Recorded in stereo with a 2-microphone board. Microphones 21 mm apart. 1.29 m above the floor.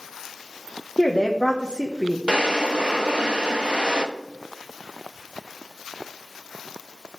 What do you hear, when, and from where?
1.0 s a woman speaking: 50° left (ahead or behind), 1.1 m
2.3 s a drawer: 55° right (ahead or behind), 0.9 m